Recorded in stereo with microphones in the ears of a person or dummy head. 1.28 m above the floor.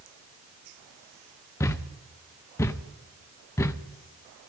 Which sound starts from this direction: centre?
A thud, at 1.6 s.